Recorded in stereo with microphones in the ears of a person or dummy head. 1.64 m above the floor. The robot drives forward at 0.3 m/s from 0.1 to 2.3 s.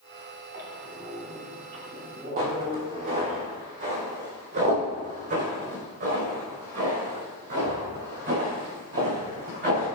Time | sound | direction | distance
0.5 | a squeak | 55° right (ahead or behind) | 3.5 m
2.4 | footsteps | 45° right (ahead or behind) | 3 m